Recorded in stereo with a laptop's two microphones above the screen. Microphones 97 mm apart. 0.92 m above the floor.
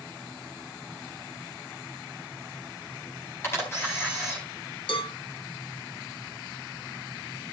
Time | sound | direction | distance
3.4 | a camera shutter | 30° left (ahead or behind) | 4 m
4.9 | a cowbell | 70° left (ahead or behind) | 1.8 m